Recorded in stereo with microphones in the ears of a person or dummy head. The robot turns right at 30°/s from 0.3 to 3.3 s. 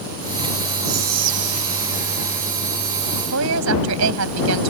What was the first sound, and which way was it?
Whispering, 50° right.